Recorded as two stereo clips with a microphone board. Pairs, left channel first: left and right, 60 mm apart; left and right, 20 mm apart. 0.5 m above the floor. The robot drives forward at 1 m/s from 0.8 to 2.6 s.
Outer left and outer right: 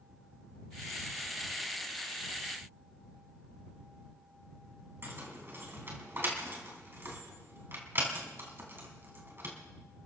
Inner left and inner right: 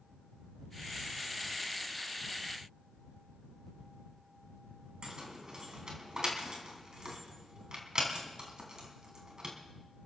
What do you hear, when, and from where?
5.0 s keys jangling: 40° right (ahead or behind), 3.5 m